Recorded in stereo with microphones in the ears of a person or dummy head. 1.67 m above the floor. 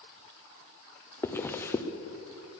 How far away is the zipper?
About 0.9 m.